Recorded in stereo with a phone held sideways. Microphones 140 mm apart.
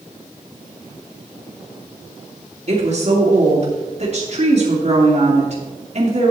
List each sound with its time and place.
2.7 s a woman speaking: 45° right (ahead or behind), 3 m